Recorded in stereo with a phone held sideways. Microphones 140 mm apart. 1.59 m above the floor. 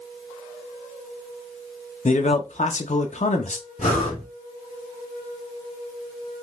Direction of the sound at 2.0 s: 55° left (ahead or behind).